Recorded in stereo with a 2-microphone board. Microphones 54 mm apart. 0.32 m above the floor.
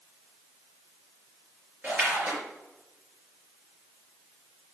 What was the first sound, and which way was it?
A splash, 35° right (ahead or behind).